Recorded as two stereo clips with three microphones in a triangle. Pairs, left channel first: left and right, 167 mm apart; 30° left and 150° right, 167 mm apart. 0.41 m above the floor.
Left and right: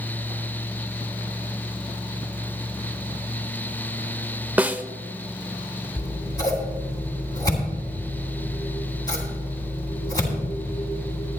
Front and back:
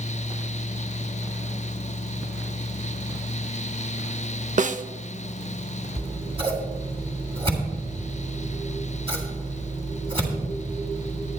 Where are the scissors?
155° left, 2.5 m.